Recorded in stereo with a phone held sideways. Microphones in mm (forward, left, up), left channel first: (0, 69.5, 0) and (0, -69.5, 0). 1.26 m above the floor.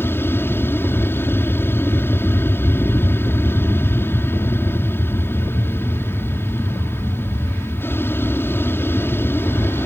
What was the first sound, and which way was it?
An aircraft, 15° left (ahead or behind).